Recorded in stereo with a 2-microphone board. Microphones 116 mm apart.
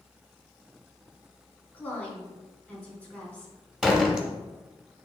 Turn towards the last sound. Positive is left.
turn(degrees=-5)  # may be behind; listen again after turning